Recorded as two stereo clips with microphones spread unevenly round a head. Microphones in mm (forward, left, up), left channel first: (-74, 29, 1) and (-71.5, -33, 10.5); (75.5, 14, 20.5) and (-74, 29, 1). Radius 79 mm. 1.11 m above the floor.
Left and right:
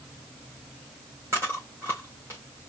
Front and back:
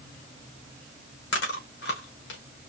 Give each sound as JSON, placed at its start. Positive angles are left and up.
{"t": 1.3, "sound": "chewing", "azimuth_deg": -15, "distance_m": 1.9}